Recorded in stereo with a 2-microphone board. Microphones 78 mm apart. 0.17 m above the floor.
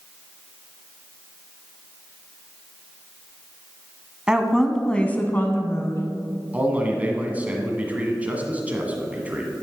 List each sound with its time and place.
4.3 s a woman speaking: 10° right (ahead or behind), 1.0 m; by 6.0 s 40° left (ahead or behind), 1.4 m
6.5 s a man speaking: 20° right (ahead or behind), 1.5 m